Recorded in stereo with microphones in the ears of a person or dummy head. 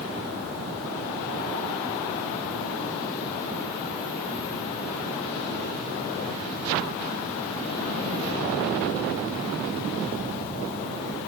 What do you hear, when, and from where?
Only background noise.